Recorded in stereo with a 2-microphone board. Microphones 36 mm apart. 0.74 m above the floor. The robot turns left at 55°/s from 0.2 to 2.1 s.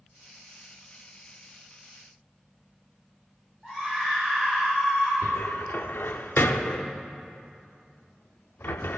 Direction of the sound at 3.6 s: 15° left (ahead or behind).